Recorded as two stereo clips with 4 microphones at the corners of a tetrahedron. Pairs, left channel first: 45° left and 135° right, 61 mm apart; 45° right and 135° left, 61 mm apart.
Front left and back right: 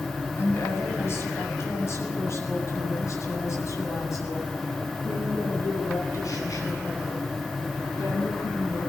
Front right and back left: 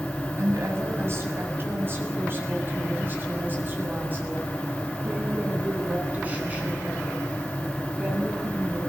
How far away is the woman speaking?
About 7.5 m.